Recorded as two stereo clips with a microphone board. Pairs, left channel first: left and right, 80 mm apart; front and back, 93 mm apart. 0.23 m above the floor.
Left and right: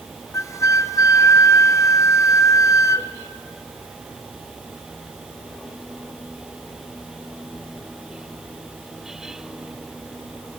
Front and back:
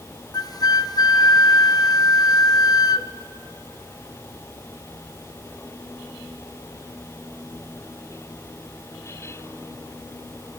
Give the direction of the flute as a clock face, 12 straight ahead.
11 o'clock.